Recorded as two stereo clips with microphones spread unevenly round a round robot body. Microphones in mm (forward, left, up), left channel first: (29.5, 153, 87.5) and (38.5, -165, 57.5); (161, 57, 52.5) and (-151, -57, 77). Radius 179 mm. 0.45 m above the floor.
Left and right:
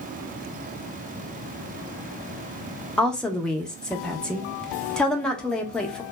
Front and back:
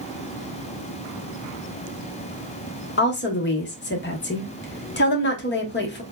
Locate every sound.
3.0 s a woman speaking: straight ahead, 0.8 m